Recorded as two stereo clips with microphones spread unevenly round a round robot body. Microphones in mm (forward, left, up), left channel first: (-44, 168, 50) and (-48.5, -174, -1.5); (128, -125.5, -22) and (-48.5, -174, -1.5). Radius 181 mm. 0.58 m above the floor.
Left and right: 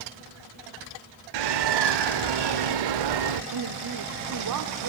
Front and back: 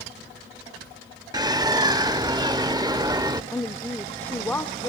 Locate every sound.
1.3 s a bird: 90° right, 1.3 m
3.5 s a woman speaking: 60° right, 1.3 m